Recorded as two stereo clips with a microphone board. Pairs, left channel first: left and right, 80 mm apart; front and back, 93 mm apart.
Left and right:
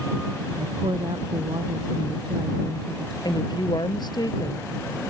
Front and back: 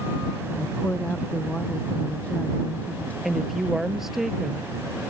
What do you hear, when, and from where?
0.6 s a woman speaking: 75° right
3.2 s a woman speaking: 95° left